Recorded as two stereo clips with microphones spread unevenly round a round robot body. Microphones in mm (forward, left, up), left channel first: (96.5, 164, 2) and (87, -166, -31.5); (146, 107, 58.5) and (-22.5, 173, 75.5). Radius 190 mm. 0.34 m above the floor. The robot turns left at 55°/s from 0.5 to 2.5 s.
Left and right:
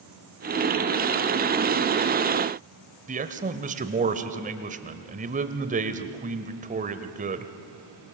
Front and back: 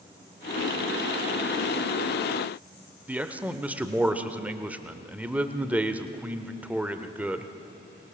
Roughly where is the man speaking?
Behind right.